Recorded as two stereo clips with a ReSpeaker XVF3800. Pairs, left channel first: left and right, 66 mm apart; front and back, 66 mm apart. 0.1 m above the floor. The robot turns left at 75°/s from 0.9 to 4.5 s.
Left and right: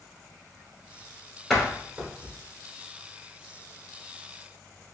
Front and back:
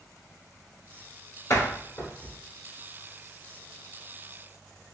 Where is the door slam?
10° left, 1.4 m; by 2.3 s 55° right, 1.4 m.